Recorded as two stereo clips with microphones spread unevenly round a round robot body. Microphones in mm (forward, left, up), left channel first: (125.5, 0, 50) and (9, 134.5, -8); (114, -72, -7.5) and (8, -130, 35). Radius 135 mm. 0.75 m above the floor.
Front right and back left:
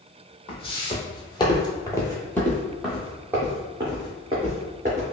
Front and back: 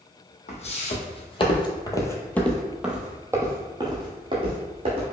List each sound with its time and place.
0.5 s footsteps: 10° right, 1.3 m; by 5.0 s 155° right, 1.7 m